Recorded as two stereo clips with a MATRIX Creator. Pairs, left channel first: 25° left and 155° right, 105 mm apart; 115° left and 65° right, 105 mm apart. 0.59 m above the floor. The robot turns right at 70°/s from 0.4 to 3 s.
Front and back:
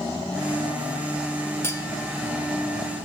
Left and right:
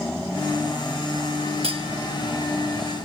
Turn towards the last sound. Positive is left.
turn(degrees=50)